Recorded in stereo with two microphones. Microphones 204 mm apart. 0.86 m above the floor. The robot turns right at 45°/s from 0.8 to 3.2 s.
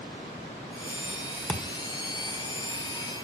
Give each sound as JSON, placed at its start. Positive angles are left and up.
{"t": 1.5, "sound": "a thud", "side_deg": 5, "distance_m": 1.2}